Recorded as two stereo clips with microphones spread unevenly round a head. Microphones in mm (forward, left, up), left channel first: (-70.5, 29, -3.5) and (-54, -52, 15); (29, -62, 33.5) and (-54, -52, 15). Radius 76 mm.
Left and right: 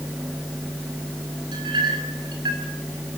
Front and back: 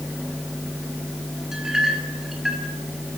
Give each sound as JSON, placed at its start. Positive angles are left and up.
{"t": 1.5, "sound": "a clink", "azimuth_deg": -100, "distance_m": 7.0}